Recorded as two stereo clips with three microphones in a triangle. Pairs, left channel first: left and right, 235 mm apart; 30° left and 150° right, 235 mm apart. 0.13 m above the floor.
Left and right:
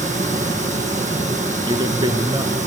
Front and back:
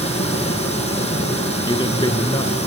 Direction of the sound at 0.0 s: 35° right.